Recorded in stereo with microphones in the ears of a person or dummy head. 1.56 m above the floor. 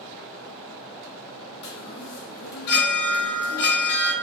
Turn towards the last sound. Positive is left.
turn(degrees=50)  # may be behind; listen again after turning